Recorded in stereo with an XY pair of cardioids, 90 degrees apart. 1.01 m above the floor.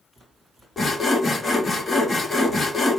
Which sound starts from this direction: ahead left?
Sawing, at 0.8 s.